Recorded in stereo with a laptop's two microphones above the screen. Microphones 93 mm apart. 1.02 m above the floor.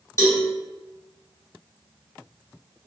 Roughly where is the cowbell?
Left.